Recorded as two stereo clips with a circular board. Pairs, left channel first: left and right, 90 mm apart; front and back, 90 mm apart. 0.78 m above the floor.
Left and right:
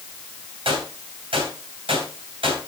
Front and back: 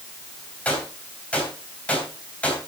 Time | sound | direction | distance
0.7 | a gunshot | 75° right | 3 m